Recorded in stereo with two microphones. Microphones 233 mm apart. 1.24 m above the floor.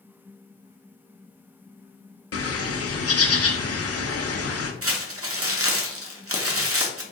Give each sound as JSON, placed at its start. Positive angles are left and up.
{"t": 2.3, "sound": "a bird", "side_deg": 80, "distance_m": 0.5}
{"t": 4.8, "sound": "crumpling", "side_deg": -70, "distance_m": 0.6}